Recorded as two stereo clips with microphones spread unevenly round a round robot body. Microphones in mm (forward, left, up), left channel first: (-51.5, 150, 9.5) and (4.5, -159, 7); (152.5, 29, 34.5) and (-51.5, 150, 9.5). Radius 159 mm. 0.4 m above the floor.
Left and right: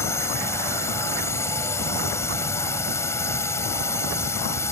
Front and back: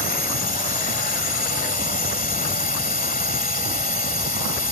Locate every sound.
0.0 s a drone: 20° left